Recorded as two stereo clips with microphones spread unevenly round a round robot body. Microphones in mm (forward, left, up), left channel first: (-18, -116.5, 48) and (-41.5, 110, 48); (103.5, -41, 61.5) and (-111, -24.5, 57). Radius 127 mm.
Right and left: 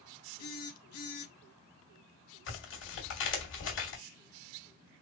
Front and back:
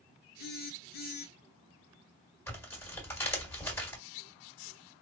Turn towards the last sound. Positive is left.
turn(degrees=-80)